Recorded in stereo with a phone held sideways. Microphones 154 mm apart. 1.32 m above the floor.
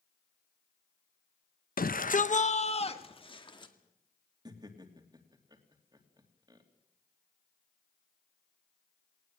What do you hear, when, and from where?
1.8 s a shout: 80° left, 0.9 m; by 3.7 s 30° left (ahead or behind), 2.5 m
4.5 s laughter: 30° right (ahead or behind), 3 m